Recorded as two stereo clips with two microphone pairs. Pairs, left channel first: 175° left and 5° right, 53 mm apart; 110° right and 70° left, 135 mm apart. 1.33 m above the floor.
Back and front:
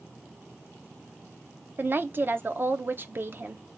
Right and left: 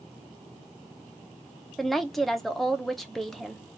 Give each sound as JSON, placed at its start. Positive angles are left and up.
{"t": 1.8, "sound": "a woman speaking", "azimuth_deg": -25, "distance_m": 0.5}